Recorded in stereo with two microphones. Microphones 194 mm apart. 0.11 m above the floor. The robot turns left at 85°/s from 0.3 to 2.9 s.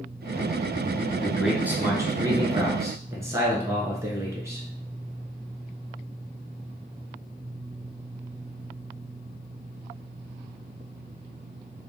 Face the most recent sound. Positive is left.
turn(degrees=-15)  # may be behind; listen again after turning